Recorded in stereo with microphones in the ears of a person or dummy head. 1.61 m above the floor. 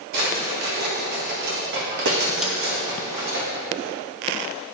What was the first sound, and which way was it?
A drawer, 55° right (ahead or behind).